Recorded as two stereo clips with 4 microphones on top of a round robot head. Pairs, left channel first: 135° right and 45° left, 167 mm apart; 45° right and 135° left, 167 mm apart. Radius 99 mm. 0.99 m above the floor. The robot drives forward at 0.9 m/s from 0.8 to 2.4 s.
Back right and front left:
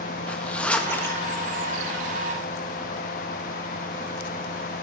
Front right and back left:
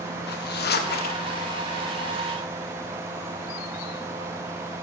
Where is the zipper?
50° right, 1.6 m; by 1.2 s 65° right, 1.4 m.